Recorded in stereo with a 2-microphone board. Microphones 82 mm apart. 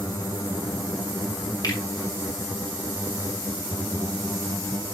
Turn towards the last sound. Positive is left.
turn(degrees=55)  # may be behind; listen again after turning